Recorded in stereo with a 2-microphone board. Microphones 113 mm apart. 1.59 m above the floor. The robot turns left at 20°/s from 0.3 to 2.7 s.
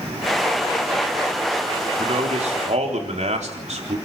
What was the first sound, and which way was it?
A man speaking, 70° right (ahead or behind).